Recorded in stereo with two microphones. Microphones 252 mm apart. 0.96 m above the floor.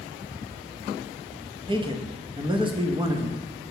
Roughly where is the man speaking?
Centre.